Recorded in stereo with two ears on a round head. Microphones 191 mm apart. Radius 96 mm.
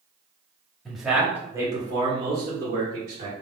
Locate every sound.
0.8 s a man speaking: centre (ahead or behind), 1.1 m; by 3.3 s 30° right (ahead or behind), 1.7 m